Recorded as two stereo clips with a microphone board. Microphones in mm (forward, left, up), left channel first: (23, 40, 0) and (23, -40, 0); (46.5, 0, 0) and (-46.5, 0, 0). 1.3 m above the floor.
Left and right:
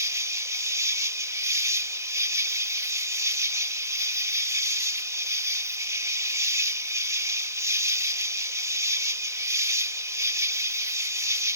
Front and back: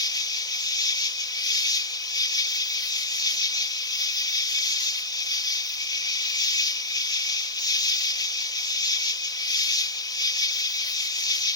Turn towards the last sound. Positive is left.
turn(degrees=-40)